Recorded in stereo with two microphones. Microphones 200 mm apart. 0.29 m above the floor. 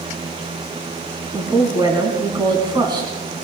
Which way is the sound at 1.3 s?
20° right (ahead or behind).